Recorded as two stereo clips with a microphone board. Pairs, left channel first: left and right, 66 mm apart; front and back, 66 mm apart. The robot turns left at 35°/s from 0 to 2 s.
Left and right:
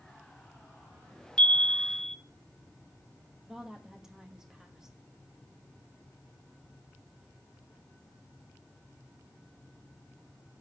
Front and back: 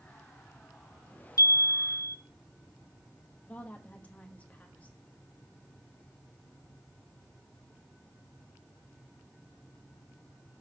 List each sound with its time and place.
1.4 s a chime: 15° left, 0.6 m; by 2.2 s 5° right, 0.6 m
3.5 s a woman speaking: 20° right, 1.0 m